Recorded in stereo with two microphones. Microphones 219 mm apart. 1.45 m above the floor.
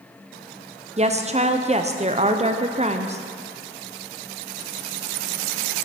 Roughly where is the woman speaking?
Right.